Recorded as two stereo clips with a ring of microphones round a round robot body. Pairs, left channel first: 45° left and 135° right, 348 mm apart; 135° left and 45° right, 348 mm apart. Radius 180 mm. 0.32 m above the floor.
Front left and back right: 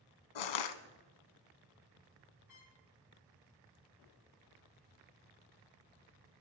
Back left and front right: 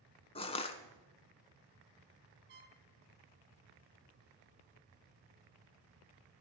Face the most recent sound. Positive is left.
turn(degrees=10)